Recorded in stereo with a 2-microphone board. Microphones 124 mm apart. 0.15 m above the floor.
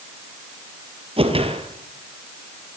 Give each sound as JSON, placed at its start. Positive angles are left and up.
{"t": 1.2, "sound": "a whoosh", "side_deg": -50, "distance_m": 4.0}